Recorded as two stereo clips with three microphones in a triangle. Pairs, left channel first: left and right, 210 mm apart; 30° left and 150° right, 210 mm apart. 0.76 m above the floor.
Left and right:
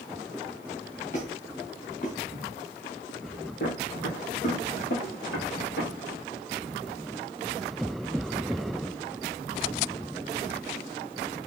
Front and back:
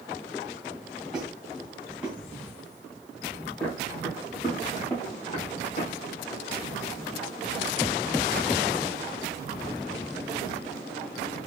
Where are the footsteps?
110° left, 3 m; by 5.9 s 85° left, 3.5 m.